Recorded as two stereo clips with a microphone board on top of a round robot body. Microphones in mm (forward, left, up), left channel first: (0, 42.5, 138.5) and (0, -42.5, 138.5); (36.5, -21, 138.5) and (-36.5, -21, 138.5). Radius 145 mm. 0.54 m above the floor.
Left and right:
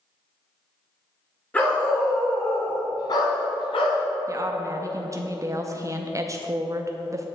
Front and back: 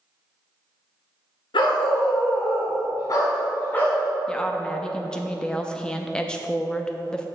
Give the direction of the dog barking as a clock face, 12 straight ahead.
11 o'clock.